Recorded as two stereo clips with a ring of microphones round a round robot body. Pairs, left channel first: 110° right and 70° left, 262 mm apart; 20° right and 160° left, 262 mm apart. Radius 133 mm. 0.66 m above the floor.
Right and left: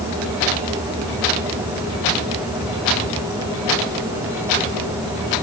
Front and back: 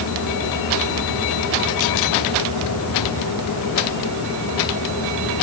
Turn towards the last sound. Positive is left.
No sound to turn to.